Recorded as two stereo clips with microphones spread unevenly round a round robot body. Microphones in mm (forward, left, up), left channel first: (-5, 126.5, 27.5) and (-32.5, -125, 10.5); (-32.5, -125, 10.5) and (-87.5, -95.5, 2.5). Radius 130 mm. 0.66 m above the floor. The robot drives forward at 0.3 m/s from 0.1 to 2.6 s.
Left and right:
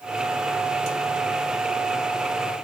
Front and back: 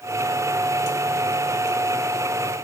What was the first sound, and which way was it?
Only background noise.